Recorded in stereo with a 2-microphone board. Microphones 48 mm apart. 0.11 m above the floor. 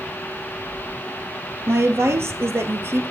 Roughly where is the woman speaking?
Right.